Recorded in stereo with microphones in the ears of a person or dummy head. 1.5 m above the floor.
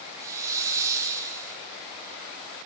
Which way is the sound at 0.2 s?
15° right (ahead or behind).